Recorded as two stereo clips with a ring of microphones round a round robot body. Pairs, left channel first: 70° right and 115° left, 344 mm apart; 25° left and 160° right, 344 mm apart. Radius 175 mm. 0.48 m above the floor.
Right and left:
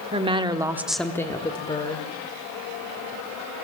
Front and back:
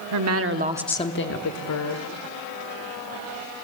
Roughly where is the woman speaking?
Behind.